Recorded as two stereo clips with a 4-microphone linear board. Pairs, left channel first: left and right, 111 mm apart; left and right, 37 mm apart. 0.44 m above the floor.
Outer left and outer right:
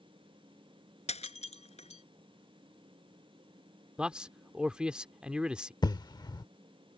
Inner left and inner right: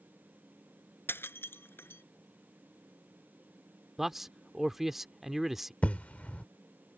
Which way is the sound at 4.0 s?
10° right (ahead or behind).